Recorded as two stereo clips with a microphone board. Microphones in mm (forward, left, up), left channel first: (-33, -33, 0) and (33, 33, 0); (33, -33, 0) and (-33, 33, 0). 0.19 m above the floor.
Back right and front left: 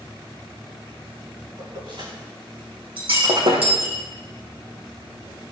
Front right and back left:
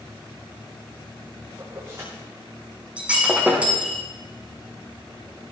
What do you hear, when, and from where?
1.6 s keys jangling: 75° left, 9.5 m
3.0 s breaking glass: 60° left, 5 m